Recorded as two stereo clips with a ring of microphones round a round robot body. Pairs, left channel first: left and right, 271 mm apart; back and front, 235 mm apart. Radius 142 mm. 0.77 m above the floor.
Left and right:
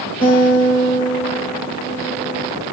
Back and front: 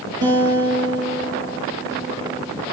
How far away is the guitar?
About 6 m.